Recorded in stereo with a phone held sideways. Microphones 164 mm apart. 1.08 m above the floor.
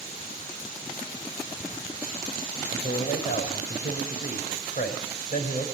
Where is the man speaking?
60° left (ahead or behind), 6 m.